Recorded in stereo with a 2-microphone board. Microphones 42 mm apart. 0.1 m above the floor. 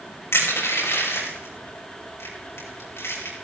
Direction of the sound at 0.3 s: 80° left.